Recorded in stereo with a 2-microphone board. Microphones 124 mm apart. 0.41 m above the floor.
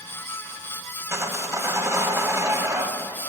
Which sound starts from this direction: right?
Sawing, at 1.1 s.